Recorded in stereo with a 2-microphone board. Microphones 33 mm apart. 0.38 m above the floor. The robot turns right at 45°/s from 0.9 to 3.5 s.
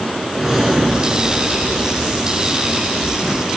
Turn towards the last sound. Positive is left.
turn(degrees=-50)